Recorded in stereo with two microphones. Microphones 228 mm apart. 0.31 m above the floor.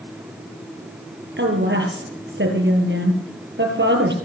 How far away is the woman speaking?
About 5.5 m.